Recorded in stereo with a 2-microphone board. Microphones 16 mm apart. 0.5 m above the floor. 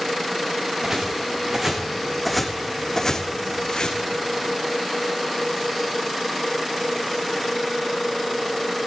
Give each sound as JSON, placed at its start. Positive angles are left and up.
{"t": 0.8, "sound": "footsteps", "side_deg": -30, "distance_m": 2.5}